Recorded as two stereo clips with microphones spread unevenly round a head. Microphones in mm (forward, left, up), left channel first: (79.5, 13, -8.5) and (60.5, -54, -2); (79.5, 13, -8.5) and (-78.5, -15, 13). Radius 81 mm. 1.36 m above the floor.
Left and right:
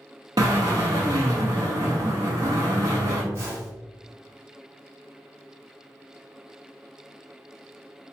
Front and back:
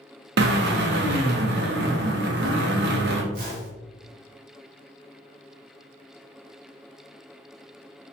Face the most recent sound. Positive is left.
turn(degrees=-155)